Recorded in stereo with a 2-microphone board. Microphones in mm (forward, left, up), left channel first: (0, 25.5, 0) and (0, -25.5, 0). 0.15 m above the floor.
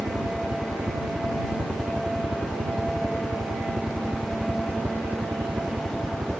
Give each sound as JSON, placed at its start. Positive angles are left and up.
{"t": 0.0, "sound": "a helicopter", "side_deg": -65}